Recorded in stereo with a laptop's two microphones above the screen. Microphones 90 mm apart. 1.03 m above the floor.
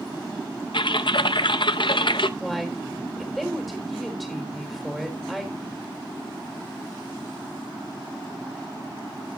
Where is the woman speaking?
Centre (ahead or behind), 4 m.